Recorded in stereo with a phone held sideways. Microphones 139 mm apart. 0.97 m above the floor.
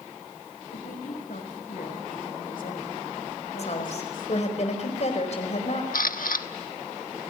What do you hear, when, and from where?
0.7 s a woman speaking: 80° left, 5 m
3.6 s a woman speaking: 55° left (ahead or behind), 4.5 m
5.9 s a camera shutter: 80° left, 1.3 m